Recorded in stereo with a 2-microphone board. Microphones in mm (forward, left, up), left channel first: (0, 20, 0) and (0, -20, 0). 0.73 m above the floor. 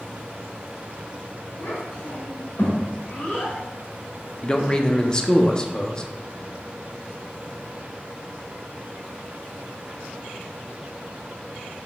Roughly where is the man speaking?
Left.